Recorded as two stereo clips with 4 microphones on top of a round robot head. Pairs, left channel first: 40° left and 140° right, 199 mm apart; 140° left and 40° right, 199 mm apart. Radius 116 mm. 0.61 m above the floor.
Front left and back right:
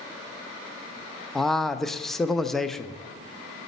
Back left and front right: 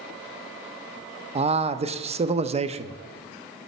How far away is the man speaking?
About 0.6 m.